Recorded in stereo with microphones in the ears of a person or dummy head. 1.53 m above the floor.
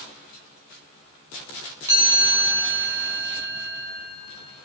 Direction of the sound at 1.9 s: 10° right (ahead or behind).